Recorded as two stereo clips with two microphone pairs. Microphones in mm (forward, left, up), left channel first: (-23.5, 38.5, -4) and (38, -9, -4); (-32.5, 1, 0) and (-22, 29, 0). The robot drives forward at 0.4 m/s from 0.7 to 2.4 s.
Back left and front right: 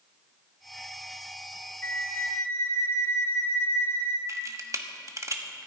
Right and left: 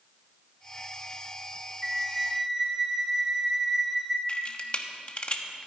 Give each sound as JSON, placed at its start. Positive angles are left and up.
{"t": 1.8, "sound": "a flute", "azimuth_deg": 130, "distance_m": 1.0}
{"t": 4.3, "sound": "a camera shutter", "azimuth_deg": -70, "distance_m": 1.2}